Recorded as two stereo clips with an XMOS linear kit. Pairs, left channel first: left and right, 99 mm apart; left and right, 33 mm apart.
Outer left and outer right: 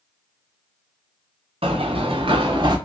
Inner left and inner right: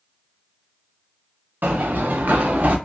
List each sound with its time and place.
1.6 s running footsteps: 75° right (ahead or behind), 1.2 m; by 2.8 s 45° right (ahead or behind), 1.0 m